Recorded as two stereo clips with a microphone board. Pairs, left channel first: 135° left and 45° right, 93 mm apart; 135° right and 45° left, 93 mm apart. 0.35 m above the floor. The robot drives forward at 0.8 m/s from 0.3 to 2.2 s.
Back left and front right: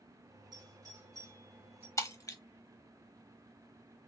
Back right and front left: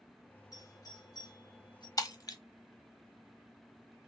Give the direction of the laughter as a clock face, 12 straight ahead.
No laughter in this recording.